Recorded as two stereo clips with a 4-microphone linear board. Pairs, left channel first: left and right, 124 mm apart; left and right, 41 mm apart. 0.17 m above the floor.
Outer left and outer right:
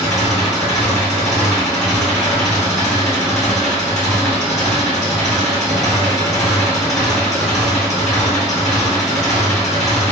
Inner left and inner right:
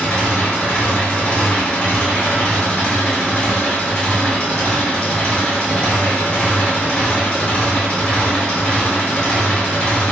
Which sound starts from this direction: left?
An engine running, at 0.0 s.